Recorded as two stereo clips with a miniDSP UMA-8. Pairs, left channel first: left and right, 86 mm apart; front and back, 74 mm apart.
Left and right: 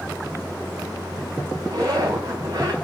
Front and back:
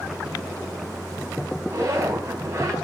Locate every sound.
1.7 s a zipper: 130° right, 3.5 m